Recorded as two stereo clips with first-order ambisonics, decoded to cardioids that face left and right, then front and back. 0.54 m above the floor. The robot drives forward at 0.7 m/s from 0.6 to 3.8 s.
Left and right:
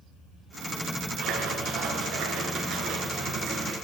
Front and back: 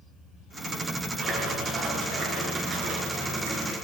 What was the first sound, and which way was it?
A splash, 125° right.